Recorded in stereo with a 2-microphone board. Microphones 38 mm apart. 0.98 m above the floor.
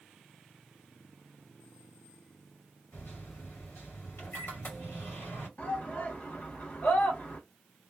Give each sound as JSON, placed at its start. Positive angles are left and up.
{"t": 2.9, "sound": "a microwave", "side_deg": 85, "distance_m": 1.7}
{"t": 5.6, "sound": "a shout", "side_deg": 50, "distance_m": 1.5}